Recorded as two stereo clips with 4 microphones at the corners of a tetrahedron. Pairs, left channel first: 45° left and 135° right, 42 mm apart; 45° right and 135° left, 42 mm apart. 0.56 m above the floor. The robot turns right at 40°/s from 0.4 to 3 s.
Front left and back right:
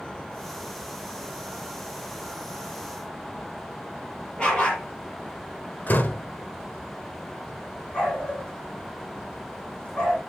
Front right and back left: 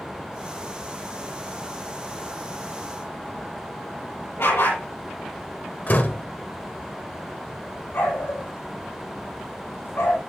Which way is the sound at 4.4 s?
25° right.